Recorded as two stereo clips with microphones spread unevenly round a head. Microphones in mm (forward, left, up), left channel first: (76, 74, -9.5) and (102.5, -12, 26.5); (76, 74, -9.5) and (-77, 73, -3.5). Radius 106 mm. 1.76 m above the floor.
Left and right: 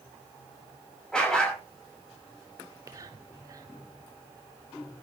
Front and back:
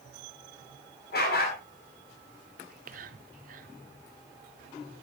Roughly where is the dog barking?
Ahead.